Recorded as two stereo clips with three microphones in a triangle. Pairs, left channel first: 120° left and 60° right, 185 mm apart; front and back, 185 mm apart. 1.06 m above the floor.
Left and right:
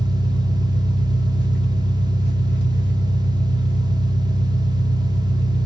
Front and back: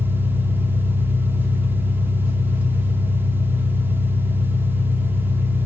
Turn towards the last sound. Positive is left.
turn(degrees=100)